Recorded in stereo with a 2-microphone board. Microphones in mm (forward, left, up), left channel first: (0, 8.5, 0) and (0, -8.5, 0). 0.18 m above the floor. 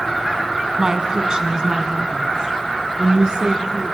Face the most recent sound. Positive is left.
turn(degrees=-50)  # may be behind; listen again after turning